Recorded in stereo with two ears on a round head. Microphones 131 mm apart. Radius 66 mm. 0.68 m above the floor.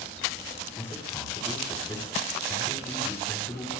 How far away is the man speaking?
About 4 m.